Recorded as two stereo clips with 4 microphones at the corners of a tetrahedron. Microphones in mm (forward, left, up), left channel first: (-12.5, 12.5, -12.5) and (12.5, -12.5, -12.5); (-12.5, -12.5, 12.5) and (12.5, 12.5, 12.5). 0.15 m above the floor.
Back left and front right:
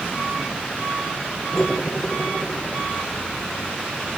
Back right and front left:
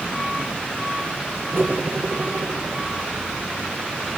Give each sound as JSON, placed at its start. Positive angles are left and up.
{"t": 1.5, "sound": "cutlery clinking", "azimuth_deg": 60, "distance_m": 4.5}